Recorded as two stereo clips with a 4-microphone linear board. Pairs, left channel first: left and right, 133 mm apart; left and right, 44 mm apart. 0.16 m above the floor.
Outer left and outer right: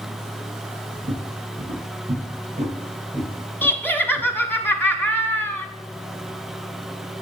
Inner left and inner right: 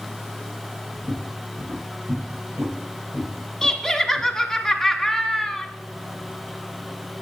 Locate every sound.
1.0 s footsteps: 80° right, 4.5 m; by 4.3 s 50° right (ahead or behind), 5 m
3.6 s laughter: 15° left (ahead or behind), 1.1 m